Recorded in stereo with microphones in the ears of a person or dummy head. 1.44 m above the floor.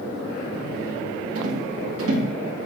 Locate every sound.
1.4 s a rattle: 85° right, 2.5 m